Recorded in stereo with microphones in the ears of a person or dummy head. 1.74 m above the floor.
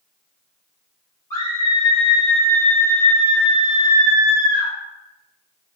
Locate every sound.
1.3 s a scream: 20° left (ahead or behind), 1.0 m